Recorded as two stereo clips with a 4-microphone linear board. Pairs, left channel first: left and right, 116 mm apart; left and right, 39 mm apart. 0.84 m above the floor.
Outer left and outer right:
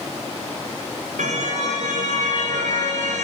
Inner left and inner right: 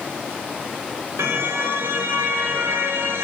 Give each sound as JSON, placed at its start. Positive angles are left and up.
{"t": 1.2, "sound": "a car horn", "side_deg": -85, "distance_m": 7.5}